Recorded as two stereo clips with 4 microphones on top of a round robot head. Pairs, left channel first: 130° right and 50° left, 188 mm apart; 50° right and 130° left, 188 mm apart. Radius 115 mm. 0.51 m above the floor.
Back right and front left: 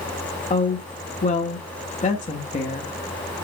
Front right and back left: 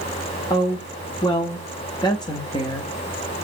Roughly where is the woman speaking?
Right.